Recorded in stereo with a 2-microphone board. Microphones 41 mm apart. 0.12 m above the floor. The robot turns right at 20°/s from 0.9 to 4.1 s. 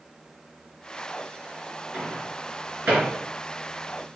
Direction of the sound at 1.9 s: 40° right (ahead or behind).